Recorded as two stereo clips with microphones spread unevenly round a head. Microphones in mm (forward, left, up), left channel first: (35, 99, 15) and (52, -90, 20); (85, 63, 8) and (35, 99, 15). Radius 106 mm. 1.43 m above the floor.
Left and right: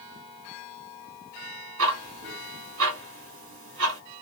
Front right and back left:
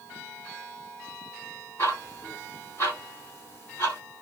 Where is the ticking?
115° right, 2.5 m.